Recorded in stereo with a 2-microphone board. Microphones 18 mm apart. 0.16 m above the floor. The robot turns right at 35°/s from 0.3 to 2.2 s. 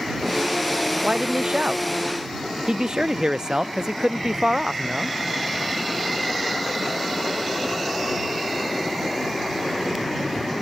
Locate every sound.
1.0 s a man speaking: 80° right; by 5.2 s 40° right